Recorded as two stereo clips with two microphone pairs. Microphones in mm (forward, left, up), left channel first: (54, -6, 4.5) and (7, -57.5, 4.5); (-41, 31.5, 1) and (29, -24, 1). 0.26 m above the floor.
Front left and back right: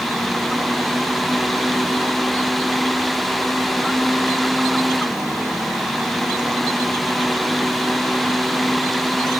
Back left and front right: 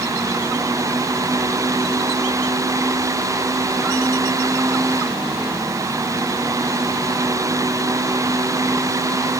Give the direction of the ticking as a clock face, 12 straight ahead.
No ticking in this recording.